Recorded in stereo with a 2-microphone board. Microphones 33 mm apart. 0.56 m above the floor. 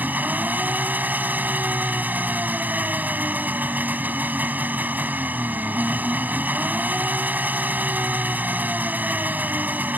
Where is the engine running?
70° right (ahead or behind).